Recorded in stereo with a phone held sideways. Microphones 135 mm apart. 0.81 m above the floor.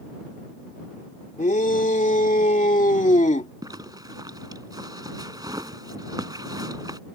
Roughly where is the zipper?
Right.